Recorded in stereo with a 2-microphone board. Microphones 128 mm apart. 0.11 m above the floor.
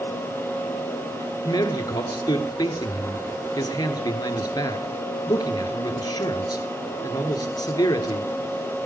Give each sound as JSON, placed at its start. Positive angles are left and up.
{"t": 1.4, "sound": "a man speaking", "side_deg": 30, "distance_m": 1.6}